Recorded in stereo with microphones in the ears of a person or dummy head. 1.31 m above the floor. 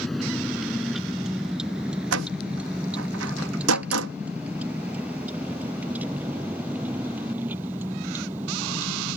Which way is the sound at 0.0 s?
Centre (ahead or behind).